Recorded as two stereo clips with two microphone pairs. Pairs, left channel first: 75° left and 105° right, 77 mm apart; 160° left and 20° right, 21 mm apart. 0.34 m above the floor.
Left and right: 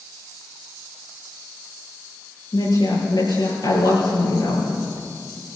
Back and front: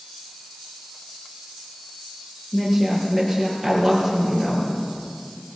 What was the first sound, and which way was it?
A woman speaking, 65° left.